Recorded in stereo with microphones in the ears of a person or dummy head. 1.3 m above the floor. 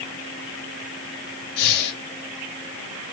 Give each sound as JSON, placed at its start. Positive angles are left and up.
{"t": 1.6, "sound": "breathing", "side_deg": 55, "distance_m": 2.5}